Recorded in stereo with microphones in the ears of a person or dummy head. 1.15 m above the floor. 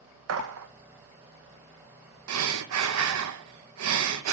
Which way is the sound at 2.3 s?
85° right.